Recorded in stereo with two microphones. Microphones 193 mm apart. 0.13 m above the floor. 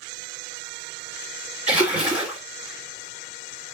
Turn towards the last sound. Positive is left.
turn(degrees=-10)  # may be behind; listen again after turning